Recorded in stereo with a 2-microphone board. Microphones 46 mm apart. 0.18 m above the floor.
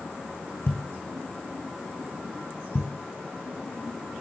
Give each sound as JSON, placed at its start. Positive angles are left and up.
{"t": 0.7, "sound": "a thud", "side_deg": 55, "distance_m": 2.0}